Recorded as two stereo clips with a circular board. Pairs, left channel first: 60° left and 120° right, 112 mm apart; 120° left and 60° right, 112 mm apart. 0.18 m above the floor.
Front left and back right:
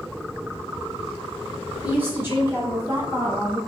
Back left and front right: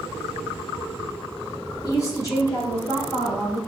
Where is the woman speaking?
170° left, 1.8 m; by 3.6 s 175° right, 2.5 m.